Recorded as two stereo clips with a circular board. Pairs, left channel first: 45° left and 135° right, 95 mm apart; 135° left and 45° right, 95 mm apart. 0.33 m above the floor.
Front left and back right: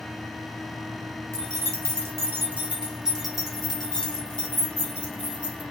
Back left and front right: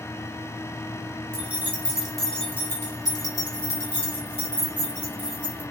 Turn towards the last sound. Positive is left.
turn(degrees=115)